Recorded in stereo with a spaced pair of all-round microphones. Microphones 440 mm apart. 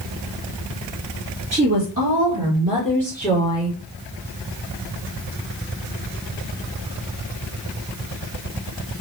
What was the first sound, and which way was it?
A woman speaking, 35° right (ahead or behind).